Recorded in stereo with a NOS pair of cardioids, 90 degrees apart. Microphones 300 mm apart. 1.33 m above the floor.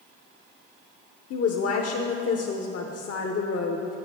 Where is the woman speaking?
55° left, 0.8 m.